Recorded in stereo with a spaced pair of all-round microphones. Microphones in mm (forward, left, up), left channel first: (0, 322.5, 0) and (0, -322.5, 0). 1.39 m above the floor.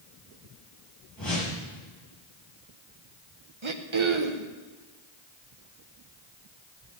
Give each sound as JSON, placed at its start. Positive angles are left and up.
{"t": 1.2, "sound": "a whoosh", "side_deg": 30, "distance_m": 6.0}
{"t": 3.6, "sound": "throat clearing", "side_deg": -50, "distance_m": 0.9}